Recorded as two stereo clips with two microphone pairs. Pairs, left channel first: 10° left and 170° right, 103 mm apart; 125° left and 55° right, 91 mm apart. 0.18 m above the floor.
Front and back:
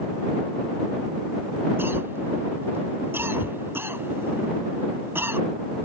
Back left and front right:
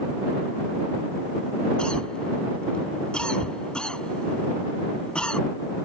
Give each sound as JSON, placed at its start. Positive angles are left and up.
{"t": 1.8, "sound": "a cough", "azimuth_deg": -175}